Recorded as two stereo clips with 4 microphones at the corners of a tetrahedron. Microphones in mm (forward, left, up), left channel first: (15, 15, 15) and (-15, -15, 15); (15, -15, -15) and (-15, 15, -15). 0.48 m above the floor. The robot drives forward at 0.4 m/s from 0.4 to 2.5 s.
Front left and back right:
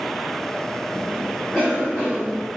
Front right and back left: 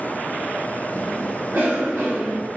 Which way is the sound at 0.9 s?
85° left.